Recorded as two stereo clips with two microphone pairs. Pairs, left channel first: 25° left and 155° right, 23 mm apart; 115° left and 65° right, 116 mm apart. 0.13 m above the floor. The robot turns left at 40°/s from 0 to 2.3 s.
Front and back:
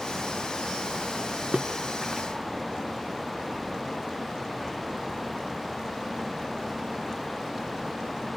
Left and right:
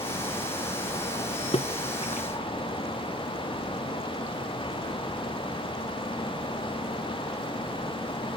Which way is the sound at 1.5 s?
145° left.